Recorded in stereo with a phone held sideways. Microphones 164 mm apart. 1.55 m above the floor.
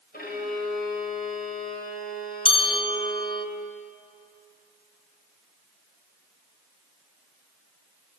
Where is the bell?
35° left (ahead or behind), 0.8 m.